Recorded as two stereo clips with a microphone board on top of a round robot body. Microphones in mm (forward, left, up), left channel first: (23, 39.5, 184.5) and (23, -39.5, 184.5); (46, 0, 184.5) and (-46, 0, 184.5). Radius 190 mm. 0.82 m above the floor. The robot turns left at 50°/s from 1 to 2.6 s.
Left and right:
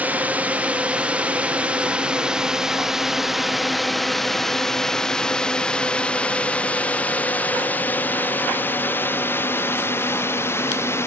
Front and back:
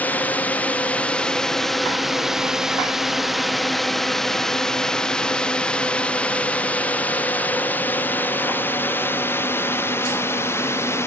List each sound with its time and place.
0.0 s a drone: 50° right; by 11.1 s 50° left